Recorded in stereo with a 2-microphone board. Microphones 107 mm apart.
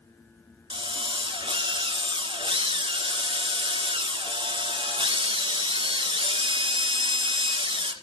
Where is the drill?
55° right (ahead or behind), 1.5 m.